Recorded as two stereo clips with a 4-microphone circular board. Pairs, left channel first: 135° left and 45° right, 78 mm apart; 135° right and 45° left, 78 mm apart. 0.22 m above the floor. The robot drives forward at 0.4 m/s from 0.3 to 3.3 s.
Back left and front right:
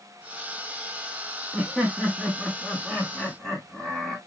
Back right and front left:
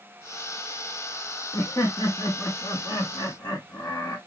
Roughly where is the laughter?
Behind right.